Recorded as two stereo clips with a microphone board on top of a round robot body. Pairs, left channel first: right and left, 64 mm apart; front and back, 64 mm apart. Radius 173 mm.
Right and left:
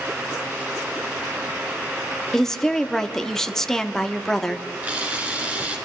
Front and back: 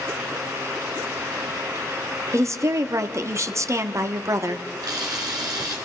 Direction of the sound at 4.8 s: 155° left.